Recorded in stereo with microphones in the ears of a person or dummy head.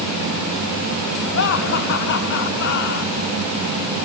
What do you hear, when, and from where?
1.3 s laughter: 60° left (ahead or behind), 4.5 m